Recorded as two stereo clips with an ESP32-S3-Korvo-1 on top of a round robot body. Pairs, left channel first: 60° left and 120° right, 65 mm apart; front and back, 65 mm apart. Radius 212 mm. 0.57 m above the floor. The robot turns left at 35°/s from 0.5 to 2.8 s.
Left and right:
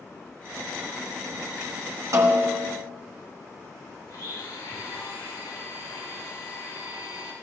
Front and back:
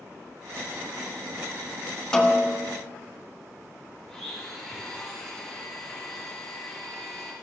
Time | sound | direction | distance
2.1 | a snare drum | 80° right | 1.5 m
4.1 | a blender | 85° left | 4 m